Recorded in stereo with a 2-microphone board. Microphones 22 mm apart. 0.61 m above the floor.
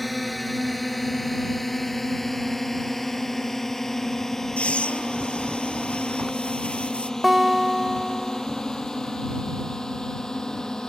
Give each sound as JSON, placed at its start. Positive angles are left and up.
{"t": 0.0, "sound": "a drone", "side_deg": 0}
{"t": 4.6, "sound": "breathing", "side_deg": 60}
{"t": 7.2, "sound": "a guitar", "side_deg": -15}